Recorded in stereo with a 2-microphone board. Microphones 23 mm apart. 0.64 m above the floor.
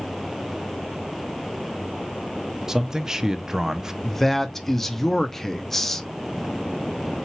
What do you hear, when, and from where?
2.7 s a man speaking: 20° right (ahead or behind), 0.5 m
4.0 s a man speaking: 10° left (ahead or behind), 0.6 m